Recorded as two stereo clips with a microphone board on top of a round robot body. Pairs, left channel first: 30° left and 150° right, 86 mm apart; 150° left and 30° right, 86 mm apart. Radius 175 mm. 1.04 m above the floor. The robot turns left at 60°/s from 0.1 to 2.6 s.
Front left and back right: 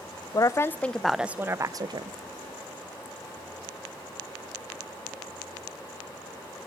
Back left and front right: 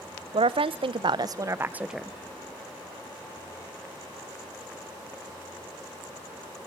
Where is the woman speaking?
15° right, 0.6 m; by 2.1 s 125° right, 0.6 m.